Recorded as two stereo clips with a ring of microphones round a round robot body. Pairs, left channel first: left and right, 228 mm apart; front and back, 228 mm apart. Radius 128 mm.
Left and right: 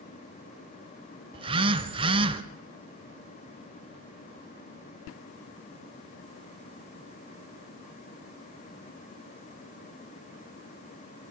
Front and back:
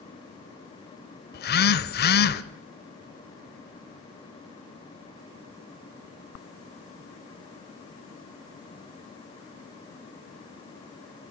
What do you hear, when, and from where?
1.3 s a phone buzzing: 30° right, 0.8 m